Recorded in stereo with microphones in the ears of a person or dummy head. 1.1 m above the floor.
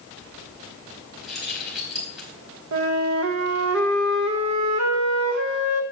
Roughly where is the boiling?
I don't hear boiling.